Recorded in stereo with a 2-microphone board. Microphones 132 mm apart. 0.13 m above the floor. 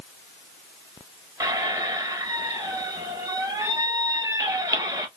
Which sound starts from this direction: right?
A squeak, at 1.4 s.